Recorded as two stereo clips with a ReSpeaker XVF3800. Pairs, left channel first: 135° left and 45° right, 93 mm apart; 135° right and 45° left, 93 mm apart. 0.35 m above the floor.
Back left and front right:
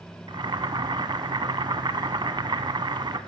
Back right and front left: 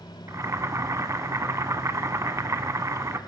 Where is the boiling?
10° right, 0.7 m.